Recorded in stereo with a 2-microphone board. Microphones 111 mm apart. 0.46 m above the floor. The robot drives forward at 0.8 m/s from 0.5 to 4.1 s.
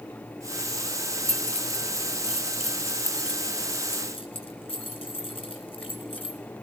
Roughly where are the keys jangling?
Left.